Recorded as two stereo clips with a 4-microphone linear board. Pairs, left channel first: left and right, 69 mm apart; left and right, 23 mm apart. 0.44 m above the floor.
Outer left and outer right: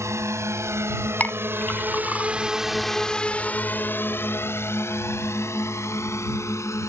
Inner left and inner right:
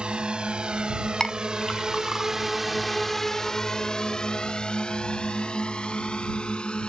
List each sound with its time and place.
0.0 s a drone: 45° right (ahead or behind); by 6.9 s 45° left (ahead or behind)
1.2 s a clink: 25° left (ahead or behind)